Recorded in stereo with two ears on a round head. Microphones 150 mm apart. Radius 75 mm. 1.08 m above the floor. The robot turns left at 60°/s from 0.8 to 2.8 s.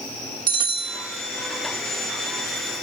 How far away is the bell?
About 3 m.